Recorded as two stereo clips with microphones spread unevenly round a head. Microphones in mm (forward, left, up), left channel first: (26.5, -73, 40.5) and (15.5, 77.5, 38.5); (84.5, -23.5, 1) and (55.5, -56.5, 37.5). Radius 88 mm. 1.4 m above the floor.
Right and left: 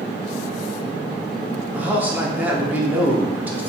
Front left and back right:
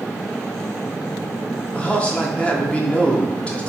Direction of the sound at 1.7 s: 15° left.